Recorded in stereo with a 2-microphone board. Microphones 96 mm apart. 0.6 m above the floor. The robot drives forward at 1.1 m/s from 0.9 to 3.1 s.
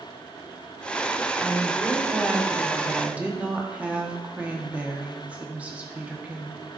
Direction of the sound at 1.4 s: 5° right (ahead or behind).